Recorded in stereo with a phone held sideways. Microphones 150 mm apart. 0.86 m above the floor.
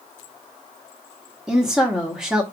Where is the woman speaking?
5° right (ahead or behind), 1.1 m.